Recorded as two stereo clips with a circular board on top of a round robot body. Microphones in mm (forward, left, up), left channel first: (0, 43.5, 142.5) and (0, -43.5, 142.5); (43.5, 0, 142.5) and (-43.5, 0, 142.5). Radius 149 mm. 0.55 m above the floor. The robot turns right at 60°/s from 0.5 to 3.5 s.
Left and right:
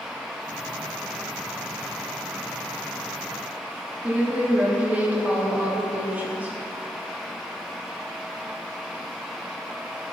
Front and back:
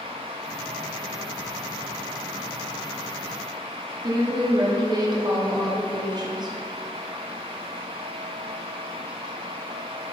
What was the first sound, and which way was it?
A woman speaking, 160° right.